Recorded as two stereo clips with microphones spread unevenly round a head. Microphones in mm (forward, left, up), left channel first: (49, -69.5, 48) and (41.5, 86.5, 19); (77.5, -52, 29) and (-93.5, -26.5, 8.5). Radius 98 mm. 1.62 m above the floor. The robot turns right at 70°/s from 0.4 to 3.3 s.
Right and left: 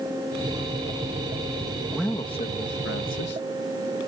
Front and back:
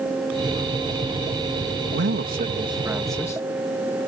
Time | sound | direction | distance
1.9 | a man speaking | straight behind | ?